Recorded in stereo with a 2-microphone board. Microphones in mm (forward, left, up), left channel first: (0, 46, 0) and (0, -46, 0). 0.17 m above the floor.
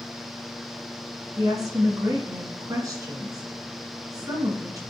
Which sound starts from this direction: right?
A woman speaking, at 1.4 s.